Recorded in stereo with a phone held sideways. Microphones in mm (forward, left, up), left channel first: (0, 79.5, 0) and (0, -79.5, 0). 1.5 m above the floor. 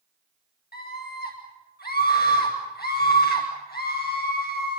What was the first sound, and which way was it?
A scream, 80° left.